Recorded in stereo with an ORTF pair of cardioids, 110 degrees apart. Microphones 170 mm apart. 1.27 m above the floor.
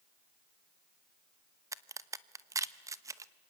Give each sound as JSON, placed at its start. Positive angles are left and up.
{"t": 1.7, "sound": "a crack", "azimuth_deg": -20, "distance_m": 0.9}